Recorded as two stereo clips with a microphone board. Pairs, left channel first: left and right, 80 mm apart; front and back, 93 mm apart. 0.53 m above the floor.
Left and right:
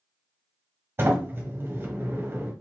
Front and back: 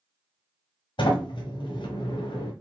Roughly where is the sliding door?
Ahead right.